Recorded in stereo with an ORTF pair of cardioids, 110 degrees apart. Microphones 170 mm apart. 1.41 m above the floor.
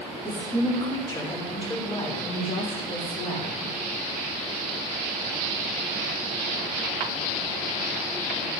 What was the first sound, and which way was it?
A woman speaking, 10° left.